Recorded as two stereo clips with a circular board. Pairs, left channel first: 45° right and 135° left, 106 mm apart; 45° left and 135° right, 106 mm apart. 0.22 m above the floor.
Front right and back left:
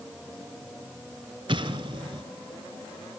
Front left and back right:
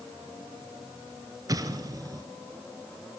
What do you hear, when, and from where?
1.5 s an explosion: 170° left, 1.2 m